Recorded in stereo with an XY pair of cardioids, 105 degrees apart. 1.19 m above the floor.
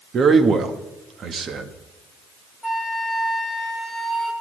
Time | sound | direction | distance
0.1 | a man speaking | 50° right | 1.5 m
2.6 | a flute | 10° left | 2.5 m